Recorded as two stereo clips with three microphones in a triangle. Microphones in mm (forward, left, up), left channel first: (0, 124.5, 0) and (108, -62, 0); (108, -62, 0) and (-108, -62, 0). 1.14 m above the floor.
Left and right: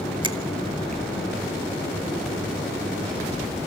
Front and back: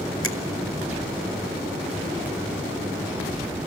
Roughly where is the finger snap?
Ahead.